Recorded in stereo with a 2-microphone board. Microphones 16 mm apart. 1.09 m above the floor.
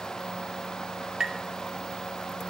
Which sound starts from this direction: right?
Tapping, at 1.2 s.